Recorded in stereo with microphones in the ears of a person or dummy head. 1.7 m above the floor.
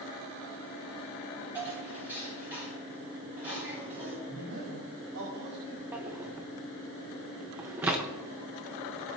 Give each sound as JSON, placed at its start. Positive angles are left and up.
{"t": 1.6, "sound": "dishes clattering", "side_deg": -10, "distance_m": 5.5}
{"t": 4.3, "sound": "a man speaking", "side_deg": -65, "distance_m": 5.0}
{"t": 5.9, "sound": "a drawer", "side_deg": -10, "distance_m": 0.9}